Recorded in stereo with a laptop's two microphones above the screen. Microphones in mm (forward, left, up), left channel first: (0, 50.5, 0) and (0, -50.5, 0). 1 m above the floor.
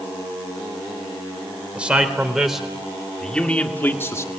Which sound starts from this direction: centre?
A man speaking, at 1.8 s.